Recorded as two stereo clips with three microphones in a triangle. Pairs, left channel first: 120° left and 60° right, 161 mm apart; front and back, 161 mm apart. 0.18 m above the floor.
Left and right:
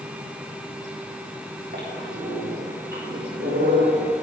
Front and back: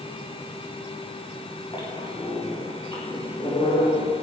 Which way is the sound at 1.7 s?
60° right.